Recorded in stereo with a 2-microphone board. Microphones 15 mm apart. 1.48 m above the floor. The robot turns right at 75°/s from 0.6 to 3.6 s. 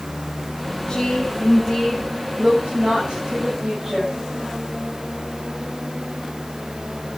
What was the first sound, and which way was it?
A woman speaking, 125° left.